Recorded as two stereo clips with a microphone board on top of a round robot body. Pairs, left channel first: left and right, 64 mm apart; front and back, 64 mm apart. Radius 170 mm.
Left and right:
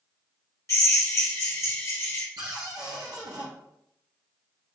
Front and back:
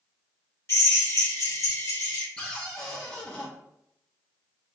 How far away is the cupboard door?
About 0.8 m.